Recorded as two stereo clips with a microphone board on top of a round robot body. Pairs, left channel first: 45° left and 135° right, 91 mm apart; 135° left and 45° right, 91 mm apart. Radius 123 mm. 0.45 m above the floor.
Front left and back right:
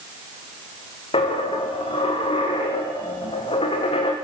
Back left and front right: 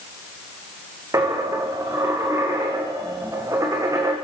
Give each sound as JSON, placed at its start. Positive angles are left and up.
{"t": 1.1, "sound": "a dropped coin", "azimuth_deg": 15, "distance_m": 5.0}